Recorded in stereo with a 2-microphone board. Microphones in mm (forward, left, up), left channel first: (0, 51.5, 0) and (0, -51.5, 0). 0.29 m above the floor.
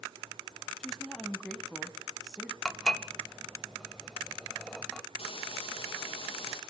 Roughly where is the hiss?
Left.